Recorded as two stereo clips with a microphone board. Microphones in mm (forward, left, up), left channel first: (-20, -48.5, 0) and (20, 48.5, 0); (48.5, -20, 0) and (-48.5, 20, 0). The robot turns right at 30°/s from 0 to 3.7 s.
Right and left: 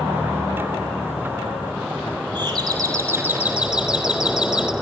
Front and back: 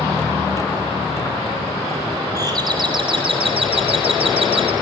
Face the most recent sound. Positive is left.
turn(degrees=145)